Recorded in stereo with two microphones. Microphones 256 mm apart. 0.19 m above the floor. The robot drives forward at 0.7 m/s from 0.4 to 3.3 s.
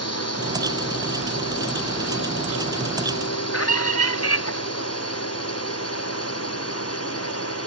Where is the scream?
65° left (ahead or behind).